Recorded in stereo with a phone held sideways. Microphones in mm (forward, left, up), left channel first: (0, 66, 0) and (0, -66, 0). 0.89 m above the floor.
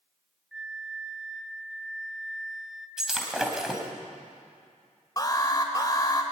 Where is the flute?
5° right (ahead or behind), 1.5 m.